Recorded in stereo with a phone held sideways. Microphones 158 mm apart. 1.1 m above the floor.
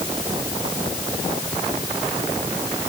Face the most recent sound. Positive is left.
No sound to turn to.